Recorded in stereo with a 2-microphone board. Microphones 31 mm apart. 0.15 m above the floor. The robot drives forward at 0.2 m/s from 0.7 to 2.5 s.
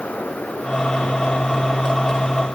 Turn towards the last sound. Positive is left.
No sound to turn to.